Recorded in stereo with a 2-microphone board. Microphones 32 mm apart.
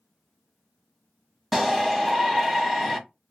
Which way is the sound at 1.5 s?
5° right (ahead or behind).